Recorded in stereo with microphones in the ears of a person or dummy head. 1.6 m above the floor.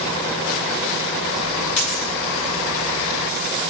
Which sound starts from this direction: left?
A dropped coin, at 1.8 s.